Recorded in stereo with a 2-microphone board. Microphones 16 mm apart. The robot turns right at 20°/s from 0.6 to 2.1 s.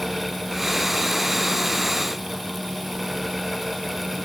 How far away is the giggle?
I don't hear a giggle.